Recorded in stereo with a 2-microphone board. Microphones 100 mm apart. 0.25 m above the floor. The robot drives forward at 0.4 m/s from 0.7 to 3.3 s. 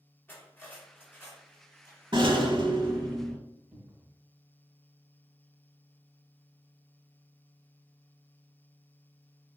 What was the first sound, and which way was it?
Cutlery clinking, 20° left (ahead or behind).